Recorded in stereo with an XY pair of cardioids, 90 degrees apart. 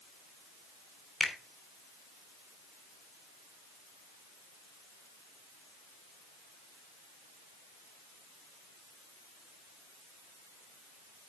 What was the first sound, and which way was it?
A finger snap, 10° left.